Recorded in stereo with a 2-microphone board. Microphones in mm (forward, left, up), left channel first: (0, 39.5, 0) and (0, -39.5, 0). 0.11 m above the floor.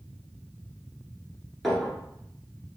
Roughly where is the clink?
Centre.